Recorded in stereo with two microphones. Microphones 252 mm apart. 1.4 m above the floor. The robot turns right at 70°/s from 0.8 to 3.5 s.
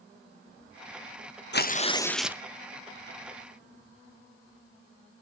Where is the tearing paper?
130° left, 0.9 m; by 2.4 s 165° right, 0.9 m.